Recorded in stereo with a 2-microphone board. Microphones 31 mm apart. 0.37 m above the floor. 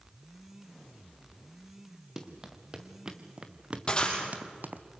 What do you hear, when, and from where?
2.2 s running footsteps: 15° right (ahead or behind), 2.5 m; by 4.8 s 70° right (ahead or behind), 1.0 m
3.9 s breaking glass: 30° left (ahead or behind), 5 m